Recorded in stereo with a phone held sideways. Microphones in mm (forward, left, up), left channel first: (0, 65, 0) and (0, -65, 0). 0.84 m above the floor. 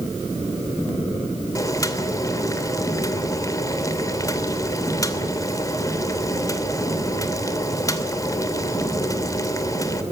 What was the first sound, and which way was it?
Boiling, 25° left (ahead or behind).